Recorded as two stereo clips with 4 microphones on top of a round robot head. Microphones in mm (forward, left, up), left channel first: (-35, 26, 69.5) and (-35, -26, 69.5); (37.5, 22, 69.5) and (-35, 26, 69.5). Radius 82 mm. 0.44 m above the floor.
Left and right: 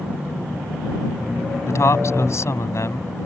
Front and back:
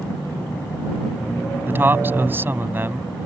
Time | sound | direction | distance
1.6 | a man speaking | 115° left | ?